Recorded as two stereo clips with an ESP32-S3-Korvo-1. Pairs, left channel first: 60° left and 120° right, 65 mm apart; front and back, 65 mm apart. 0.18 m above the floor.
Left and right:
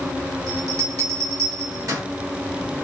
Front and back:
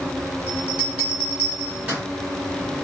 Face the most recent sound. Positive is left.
turn(degrees=-115)